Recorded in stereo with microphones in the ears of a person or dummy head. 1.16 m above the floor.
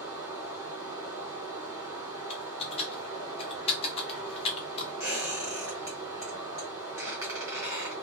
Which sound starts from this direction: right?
Running water, at 0.0 s.